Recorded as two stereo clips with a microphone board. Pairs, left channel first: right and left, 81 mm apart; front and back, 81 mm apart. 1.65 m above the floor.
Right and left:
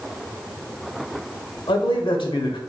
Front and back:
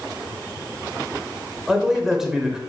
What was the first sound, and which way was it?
A man speaking, 95° right.